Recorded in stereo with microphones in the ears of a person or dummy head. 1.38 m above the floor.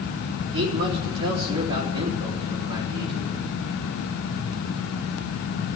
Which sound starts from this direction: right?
A man speaking, at 0.5 s.